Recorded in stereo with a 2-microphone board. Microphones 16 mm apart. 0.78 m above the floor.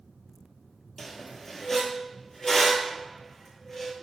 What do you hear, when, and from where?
1.0 s a squeak: 25° left (ahead or behind), 0.9 m